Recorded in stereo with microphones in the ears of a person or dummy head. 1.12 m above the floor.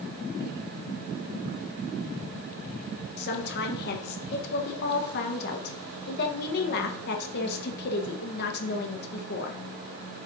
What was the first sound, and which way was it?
A woman speaking, 60° left (ahead or behind).